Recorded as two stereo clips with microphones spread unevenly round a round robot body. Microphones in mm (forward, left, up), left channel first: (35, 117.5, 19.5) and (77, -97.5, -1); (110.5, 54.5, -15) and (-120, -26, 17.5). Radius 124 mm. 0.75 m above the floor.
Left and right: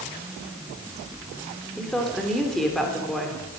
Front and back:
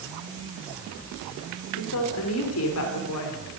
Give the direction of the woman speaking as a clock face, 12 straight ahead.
12 o'clock.